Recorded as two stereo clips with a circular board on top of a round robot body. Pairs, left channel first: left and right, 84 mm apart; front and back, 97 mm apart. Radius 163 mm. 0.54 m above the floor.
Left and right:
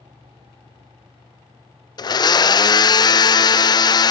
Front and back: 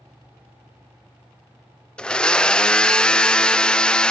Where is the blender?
80° left, 0.5 m.